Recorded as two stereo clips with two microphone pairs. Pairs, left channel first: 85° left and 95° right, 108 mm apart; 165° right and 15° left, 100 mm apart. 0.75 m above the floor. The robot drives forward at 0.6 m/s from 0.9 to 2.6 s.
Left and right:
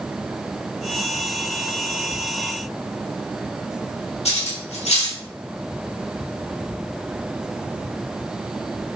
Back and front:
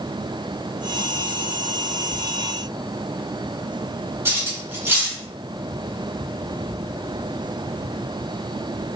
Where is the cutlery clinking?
80° left, 0.9 m.